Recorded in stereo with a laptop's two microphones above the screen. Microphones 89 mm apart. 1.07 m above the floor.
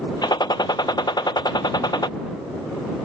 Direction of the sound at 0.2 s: 50° left (ahead or behind).